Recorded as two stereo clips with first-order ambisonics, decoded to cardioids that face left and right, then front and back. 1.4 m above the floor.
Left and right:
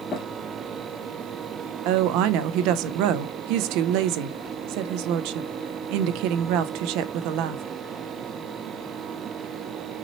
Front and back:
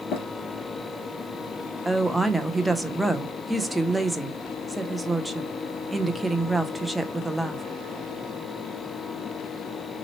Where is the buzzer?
No buzzer in this recording.